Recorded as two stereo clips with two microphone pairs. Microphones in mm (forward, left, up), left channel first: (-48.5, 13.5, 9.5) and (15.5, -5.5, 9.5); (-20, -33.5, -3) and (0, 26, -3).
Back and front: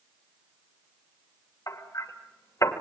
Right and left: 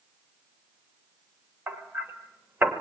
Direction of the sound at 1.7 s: 130° left.